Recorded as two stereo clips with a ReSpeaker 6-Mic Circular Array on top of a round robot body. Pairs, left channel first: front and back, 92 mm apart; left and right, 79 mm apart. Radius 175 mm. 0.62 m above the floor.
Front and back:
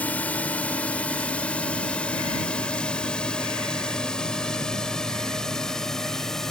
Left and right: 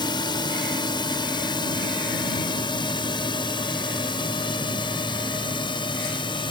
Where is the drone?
75° left; by 6.5 s 85° left.